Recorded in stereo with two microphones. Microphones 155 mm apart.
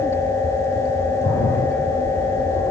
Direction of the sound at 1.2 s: 60° left (ahead or behind).